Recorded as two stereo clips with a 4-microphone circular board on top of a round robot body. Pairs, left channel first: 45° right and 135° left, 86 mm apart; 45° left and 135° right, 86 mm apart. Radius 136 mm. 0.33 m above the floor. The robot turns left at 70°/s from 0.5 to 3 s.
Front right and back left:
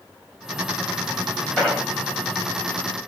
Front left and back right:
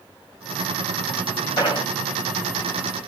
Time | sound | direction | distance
1.6 | an explosion | 40° left | 3 m